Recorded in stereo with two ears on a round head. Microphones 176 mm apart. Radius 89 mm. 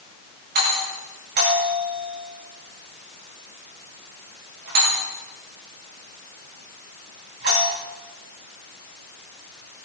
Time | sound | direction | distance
0.6 | a doorbell | 60° right (ahead or behind) | 9 m